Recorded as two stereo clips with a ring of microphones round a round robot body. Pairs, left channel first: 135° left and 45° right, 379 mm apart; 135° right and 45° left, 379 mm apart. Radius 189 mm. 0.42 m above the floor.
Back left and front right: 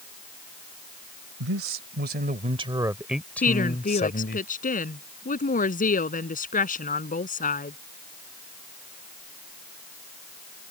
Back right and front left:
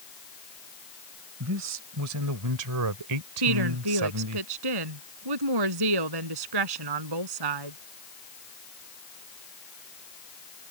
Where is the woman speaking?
65° left.